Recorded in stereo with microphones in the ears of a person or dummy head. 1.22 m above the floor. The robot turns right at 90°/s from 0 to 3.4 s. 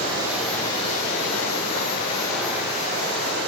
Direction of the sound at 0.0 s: 40° right.